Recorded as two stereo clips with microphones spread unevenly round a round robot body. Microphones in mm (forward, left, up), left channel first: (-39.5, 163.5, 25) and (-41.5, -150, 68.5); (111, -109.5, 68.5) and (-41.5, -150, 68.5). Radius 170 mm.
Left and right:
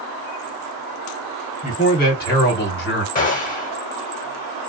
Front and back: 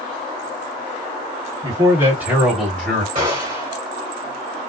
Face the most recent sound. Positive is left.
turn(degrees=140)